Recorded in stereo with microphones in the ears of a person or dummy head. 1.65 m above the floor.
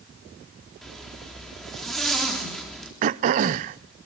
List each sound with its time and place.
0.8 s a zipper: centre (ahead or behind), 4 m
3.0 s throat clearing: 40° right (ahead or behind), 0.5 m